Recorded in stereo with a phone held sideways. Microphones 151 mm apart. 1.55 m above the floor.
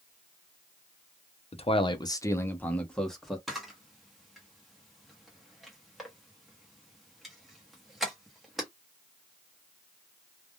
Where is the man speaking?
45° left (ahead or behind), 0.6 m; by 3.4 s centre (ahead or behind), 1.2 m.